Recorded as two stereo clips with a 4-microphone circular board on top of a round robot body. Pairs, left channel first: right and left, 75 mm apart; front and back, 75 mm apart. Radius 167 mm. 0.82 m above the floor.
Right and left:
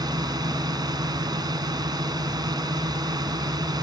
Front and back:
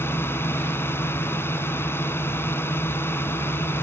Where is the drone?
60° left.